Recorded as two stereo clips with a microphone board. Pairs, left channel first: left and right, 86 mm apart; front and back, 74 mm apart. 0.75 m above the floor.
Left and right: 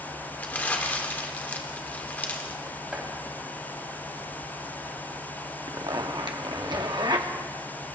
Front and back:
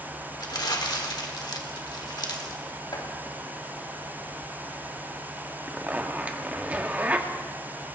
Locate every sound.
0.4 s crumpling: 20° left, 1.4 m
2.9 s chopping: 10° right, 4 m
5.7 s a zipper: 110° right, 1.0 m